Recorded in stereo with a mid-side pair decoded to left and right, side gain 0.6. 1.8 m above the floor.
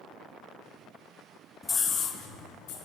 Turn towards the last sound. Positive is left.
turn(degrees=80)